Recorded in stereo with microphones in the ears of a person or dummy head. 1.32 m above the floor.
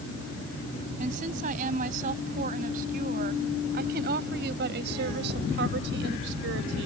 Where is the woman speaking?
45° right (ahead or behind); by 6.9 s 75° right (ahead or behind).